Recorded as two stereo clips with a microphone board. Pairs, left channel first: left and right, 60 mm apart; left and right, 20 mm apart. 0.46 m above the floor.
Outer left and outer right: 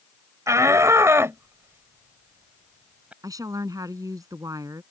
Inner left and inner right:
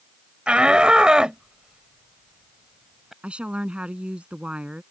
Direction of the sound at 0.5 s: 60° right (ahead or behind).